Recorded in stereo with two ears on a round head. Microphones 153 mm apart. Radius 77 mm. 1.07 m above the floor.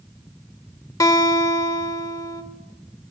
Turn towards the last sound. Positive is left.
turn(degrees=20)  # may be behind; listen again after turning